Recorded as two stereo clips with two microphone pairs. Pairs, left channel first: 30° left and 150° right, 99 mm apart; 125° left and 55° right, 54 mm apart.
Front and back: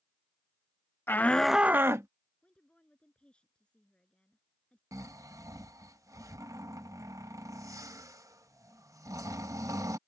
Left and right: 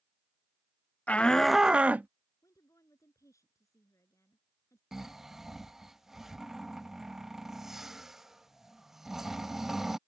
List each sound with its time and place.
1.1 s a shout: 80° left; by 2.1 s 100° right
2.4 s a woman speaking: 110° left
4.9 s snoring: 130° right